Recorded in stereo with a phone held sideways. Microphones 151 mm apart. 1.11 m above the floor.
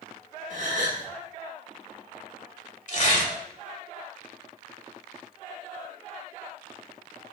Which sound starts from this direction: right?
A gasp, at 0.5 s.